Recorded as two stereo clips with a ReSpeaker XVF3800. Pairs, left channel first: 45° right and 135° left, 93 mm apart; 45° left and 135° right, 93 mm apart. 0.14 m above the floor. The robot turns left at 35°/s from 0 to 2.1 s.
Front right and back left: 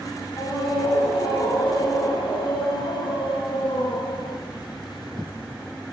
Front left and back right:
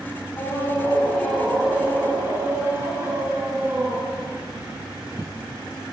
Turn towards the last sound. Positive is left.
turn(degrees=-70)